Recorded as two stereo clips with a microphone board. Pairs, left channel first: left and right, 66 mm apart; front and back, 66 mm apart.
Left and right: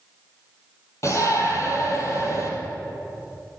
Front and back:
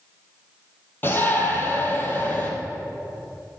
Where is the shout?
55° left, 3.5 m.